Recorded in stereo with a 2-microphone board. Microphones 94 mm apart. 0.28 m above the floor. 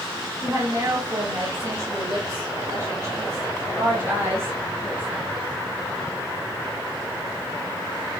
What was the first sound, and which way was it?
A woman speaking, 30° right (ahead or behind).